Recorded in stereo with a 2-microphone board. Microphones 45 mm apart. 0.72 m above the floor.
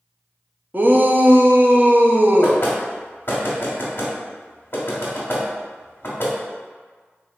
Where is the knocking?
50° left (ahead or behind), 1.4 m.